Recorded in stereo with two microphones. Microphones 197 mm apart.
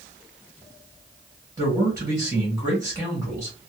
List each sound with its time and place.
1.6 s a man speaking: 15° right (ahead or behind), 1.2 m